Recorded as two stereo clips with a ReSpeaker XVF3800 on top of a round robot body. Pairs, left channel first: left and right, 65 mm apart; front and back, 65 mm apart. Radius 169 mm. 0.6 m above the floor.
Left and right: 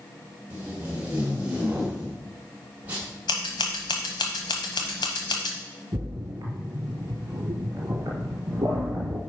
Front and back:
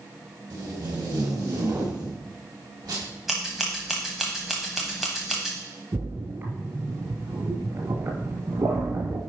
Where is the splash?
130° right, 1.9 m.